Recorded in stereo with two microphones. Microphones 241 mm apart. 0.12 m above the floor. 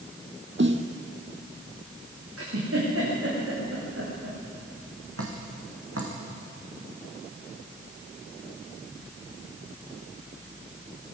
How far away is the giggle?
About 8 m.